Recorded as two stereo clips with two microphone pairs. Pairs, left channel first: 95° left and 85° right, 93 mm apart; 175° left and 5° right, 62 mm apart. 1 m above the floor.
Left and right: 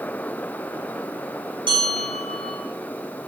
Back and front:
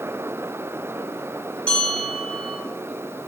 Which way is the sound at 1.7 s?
110° right.